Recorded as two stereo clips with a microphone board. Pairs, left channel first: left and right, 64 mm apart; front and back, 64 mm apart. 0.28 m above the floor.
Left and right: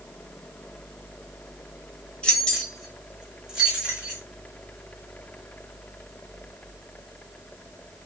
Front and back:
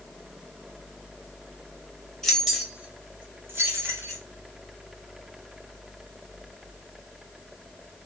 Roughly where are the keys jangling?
Ahead left.